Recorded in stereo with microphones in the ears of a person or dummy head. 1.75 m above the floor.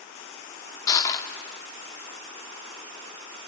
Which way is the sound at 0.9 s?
20° left (ahead or behind).